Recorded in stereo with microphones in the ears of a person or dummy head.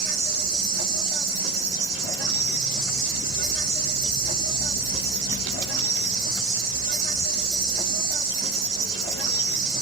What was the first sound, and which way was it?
An insect, 50° right (ahead or behind).